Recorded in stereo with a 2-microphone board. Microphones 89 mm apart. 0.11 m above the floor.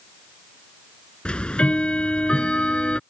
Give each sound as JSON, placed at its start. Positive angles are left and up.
{"t": 1.2, "sound": "ticking", "side_deg": 10}